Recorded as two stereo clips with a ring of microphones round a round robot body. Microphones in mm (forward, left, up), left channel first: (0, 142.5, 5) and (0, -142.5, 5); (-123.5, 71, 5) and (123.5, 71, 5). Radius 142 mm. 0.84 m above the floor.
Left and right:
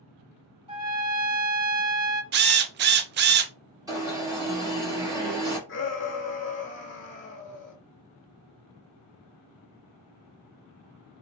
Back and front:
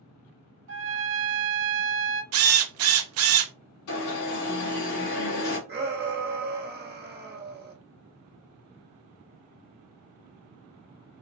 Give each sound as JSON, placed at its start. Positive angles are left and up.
{"t": 0.7, "sound": "a trumpet", "azimuth_deg": -20, "distance_m": 0.8}
{"t": 2.3, "sound": "a drill", "azimuth_deg": -35, "distance_m": 0.5}
{"t": 3.9, "sound": "an alarm", "azimuth_deg": -170, "distance_m": 2.5}
{"t": 5.7, "sound": "a shout", "azimuth_deg": 45, "distance_m": 1.5}